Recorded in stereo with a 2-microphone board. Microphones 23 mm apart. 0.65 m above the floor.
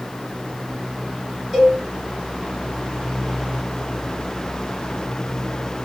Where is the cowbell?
20° right (ahead or behind), 3.5 m.